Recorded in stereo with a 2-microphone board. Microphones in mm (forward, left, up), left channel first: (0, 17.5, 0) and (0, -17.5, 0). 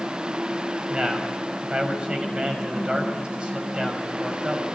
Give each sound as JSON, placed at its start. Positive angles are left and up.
{"t": 0.9, "sound": "a man speaking", "side_deg": -30, "distance_m": 6.0}